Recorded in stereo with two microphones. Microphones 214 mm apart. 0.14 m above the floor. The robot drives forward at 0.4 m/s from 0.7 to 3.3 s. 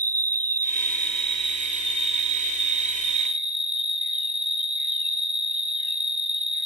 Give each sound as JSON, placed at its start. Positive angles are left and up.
{"t": 0.0, "sound": "an insect", "side_deg": -45, "distance_m": 1.1}